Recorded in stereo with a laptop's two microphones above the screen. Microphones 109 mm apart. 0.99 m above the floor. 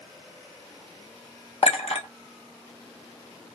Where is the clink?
70° left (ahead or behind), 0.7 m.